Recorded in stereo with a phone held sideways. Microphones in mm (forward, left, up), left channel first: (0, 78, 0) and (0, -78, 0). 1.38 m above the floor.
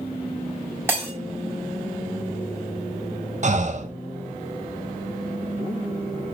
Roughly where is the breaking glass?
Centre.